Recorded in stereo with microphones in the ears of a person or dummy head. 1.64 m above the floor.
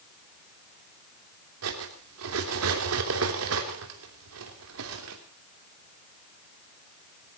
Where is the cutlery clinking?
75° right (ahead or behind), 3 m.